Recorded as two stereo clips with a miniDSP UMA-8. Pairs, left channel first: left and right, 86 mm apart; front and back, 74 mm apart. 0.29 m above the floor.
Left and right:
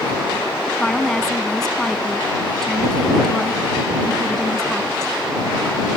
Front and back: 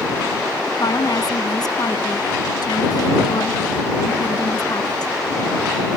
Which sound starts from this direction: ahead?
A woman speaking, at 0.8 s.